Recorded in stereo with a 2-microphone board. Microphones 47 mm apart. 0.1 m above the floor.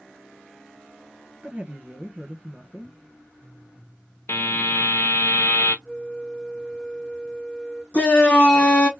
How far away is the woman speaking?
About 1.6 m.